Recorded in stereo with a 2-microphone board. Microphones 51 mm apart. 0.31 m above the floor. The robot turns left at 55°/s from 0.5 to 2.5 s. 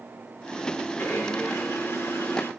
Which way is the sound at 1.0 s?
130° left.